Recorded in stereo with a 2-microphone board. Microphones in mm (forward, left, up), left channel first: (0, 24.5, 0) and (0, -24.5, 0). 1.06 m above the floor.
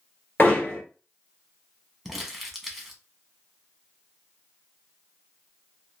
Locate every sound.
0.4 s hammering: 40° left (ahead or behind), 1.9 m
2.0 s crumpling: centre (ahead or behind), 1.0 m